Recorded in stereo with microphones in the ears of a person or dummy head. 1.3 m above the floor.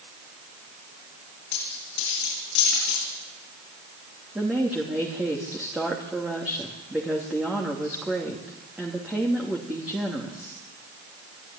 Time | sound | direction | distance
1.5 | a dropped coin | 65° left (ahead or behind) | 9 m
4.3 | a woman speaking | 5° right (ahead or behind) | 2.5 m